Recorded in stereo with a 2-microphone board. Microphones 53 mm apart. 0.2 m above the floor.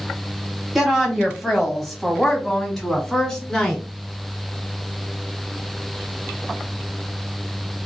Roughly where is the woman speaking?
Centre.